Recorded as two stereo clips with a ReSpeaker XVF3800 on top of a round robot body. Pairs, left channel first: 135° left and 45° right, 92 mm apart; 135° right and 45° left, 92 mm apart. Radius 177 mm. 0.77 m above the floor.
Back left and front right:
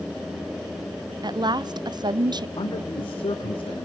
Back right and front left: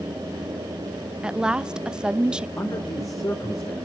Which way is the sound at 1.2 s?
35° right.